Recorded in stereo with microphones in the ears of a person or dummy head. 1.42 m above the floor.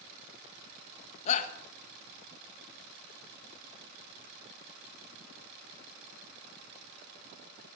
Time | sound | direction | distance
1.3 | a shout | 35° left (ahead or behind) | 1.5 m